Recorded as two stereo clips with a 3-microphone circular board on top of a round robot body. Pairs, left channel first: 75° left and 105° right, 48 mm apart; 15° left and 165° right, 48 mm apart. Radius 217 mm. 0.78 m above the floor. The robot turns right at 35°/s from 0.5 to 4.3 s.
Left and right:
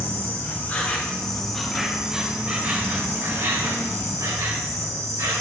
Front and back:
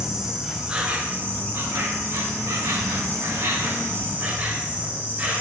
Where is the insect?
120° left, 2.5 m; by 5.4 s 105° right, 2.5 m.